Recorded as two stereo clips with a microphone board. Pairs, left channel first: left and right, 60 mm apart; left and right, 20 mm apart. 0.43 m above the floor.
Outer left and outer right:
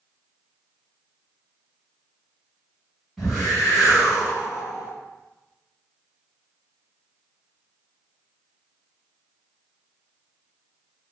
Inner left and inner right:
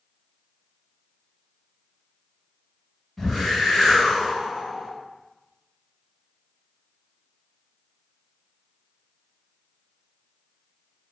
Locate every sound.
3.2 s a whoosh: centre (ahead or behind), 1.7 m